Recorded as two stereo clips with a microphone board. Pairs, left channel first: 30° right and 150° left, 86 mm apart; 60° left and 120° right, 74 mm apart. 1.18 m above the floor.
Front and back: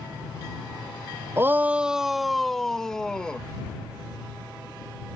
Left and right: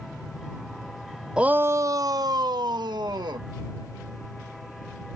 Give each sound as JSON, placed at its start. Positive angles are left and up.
{"t": 1.4, "sound": "a shout", "azimuth_deg": 175}